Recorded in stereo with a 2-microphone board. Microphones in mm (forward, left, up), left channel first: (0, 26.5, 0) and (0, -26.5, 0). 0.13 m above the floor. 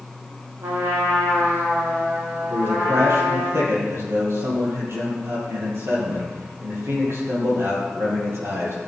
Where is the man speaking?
55° right (ahead or behind), 4.5 m.